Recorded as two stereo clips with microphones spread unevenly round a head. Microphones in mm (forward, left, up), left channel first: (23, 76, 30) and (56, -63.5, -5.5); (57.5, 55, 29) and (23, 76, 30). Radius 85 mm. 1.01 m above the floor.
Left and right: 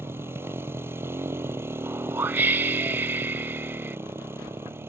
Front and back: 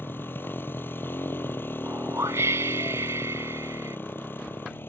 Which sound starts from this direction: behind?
A whoosh, at 1.8 s.